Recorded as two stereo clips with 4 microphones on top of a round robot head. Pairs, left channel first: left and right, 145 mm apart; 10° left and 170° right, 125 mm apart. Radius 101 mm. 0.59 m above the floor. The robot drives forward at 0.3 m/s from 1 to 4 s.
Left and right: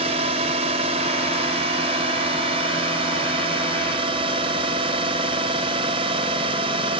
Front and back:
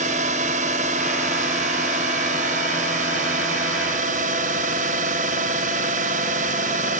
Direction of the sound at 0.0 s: 140° right.